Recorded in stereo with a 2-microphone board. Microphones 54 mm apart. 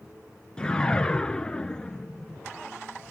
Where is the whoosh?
15° left (ahead or behind), 0.6 m.